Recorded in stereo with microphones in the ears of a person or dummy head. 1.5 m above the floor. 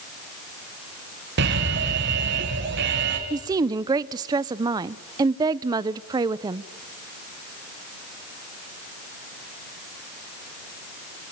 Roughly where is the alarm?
Right.